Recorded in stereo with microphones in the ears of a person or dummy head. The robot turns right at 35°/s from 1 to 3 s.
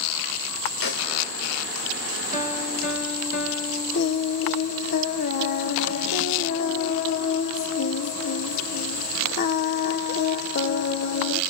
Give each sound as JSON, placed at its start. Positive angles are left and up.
{"t": 0.8, "sound": "a snare drum", "side_deg": 55, "distance_m": 2.5}
{"t": 2.3, "sound": "a piano", "side_deg": 40, "distance_m": 2.5}
{"t": 3.9, "sound": "singing", "side_deg": 60, "distance_m": 1.0}